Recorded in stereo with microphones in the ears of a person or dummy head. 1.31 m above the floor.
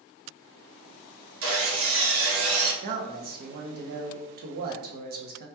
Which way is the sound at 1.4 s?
65° right (ahead or behind).